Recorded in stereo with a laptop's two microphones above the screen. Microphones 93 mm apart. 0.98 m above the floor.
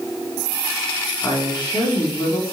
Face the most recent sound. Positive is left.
turn(degrees=45)  # may be behind; listen again after turning